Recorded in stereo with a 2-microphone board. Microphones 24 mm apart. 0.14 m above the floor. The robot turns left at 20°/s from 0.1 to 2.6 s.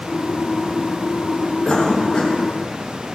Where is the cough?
35° left (ahead or behind), 5 m; by 2.4 s 45° left (ahead or behind), 5 m.